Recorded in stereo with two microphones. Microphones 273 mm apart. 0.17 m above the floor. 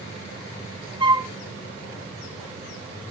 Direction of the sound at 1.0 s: 15° right (ahead or behind).